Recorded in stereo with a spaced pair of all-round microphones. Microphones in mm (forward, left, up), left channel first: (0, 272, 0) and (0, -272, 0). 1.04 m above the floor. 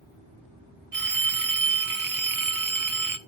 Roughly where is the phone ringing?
Right.